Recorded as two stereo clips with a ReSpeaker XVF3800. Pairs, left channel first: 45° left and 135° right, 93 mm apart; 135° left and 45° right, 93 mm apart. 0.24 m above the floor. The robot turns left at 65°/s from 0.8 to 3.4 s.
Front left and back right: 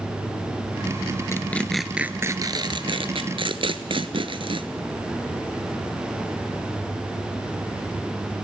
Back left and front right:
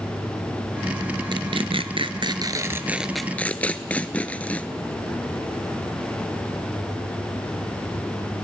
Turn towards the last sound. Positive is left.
turn(degrees=-150)